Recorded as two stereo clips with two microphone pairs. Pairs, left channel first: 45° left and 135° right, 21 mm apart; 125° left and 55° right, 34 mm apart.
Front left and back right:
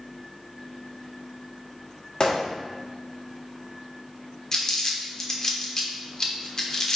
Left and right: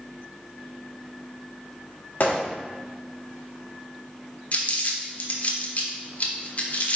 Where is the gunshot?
95° left, 1.8 m.